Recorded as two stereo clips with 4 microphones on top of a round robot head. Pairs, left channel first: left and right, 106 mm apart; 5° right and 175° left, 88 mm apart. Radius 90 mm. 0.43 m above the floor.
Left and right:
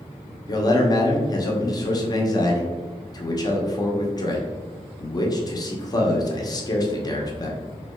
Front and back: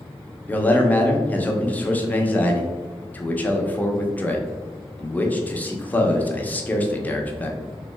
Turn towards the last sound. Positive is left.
turn(degrees=60)